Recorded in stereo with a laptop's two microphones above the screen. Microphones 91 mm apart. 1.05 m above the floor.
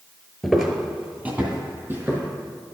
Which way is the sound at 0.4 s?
Centre (ahead or behind).